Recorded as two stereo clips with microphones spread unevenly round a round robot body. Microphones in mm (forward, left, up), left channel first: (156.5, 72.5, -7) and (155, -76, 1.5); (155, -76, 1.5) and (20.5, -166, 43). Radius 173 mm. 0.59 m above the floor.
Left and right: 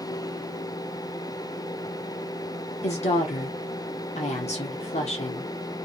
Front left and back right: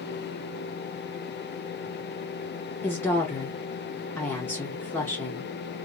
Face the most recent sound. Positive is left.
turn(degrees=95)